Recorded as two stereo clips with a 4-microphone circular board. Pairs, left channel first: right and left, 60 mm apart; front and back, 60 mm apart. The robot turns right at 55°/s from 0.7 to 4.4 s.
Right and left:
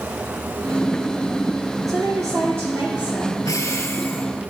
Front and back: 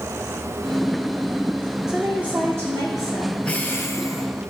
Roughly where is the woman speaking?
Left.